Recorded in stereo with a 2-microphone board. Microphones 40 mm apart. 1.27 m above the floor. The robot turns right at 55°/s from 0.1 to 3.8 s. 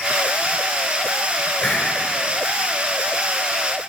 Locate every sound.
1.6 s a hiss: 10° left (ahead or behind), 2 m; by 1.9 s 5° right (ahead or behind), 2 m